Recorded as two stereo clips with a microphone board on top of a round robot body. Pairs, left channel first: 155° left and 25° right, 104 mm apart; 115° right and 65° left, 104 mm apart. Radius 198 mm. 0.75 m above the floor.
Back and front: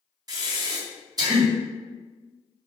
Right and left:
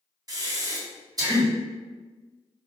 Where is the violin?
No violin in this recording.